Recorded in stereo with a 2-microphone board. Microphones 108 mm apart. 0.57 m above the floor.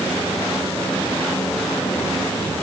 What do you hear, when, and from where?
Only background noise.